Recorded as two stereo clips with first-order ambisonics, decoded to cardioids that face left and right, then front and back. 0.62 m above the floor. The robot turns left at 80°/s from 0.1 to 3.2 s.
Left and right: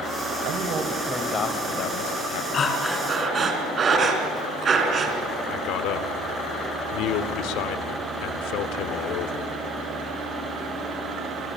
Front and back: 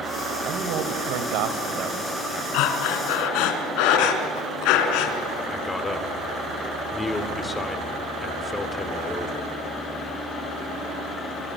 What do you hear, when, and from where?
0.4 s a man speaking: 125° right, 2.5 m; by 2.4 s 75° left, 2.5 m
2.5 s breathing: 30° left, 2.5 m; by 5.2 s 20° right, 2.5 m
5.5 s a man speaking: 80° left, 1.7 m